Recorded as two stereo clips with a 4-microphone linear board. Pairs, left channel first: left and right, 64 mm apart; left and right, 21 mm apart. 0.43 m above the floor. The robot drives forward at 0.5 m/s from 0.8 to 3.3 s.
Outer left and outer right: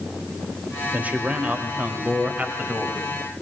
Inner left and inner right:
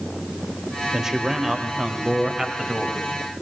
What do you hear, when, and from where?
0.9 s a man speaking: 25° right (ahead or behind), 2 m; by 3.0 s 20° right (ahead or behind), 3 m